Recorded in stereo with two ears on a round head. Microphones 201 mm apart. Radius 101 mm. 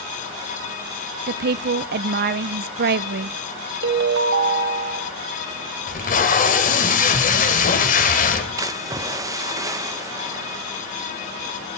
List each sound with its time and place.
1.3 s a woman speaking: 45° right (ahead or behind), 0.5 m
3.8 s a ringtone: 55° right (ahead or behind), 1.7 m
5.9 s tape being pulled: 40° left (ahead or behind), 2.5 m
8.6 s a splash: 15° right (ahead or behind), 1.1 m